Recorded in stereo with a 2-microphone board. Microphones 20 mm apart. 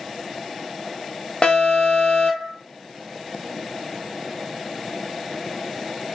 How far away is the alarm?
About 0.8 m.